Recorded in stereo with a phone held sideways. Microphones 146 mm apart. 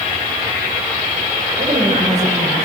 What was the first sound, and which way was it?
A woman speaking, 50° right (ahead or behind).